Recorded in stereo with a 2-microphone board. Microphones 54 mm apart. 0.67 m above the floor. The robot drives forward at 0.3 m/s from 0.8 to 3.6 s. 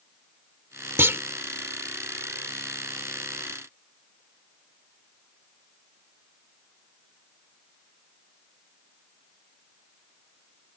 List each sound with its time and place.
1.0 s a clunk: 50° right (ahead or behind)